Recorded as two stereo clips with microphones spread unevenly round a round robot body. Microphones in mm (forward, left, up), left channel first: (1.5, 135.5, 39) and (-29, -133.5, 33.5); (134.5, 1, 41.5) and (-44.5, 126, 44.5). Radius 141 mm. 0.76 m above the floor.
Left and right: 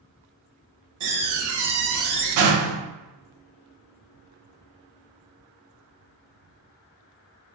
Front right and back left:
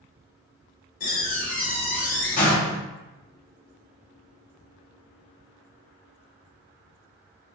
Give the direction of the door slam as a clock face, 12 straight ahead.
3 o'clock.